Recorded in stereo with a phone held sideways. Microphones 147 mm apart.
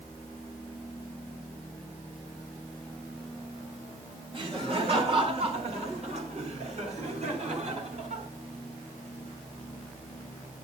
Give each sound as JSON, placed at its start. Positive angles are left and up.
{"t": 4.3, "sound": "laughter", "side_deg": -35, "distance_m": 2.5}